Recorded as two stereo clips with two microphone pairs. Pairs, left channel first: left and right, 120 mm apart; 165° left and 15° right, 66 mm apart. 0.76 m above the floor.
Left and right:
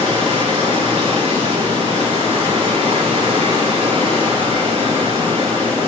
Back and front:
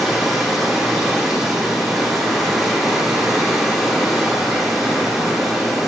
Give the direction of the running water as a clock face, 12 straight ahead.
3 o'clock.